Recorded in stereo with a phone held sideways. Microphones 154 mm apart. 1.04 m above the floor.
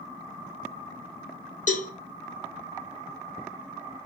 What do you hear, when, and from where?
1.7 s a cowbell: 55° left (ahead or behind), 1.1 m